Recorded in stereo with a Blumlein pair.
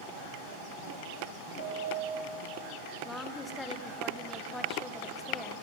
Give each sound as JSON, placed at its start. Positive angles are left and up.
{"t": 1.6, "sound": "a piano", "azimuth_deg": -45, "distance_m": 5.5}
{"t": 3.0, "sound": "a woman speaking", "azimuth_deg": 5, "distance_m": 1.8}